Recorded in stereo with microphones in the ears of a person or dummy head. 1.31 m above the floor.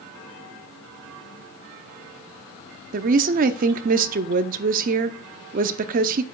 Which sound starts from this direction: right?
A woman speaking, at 2.9 s.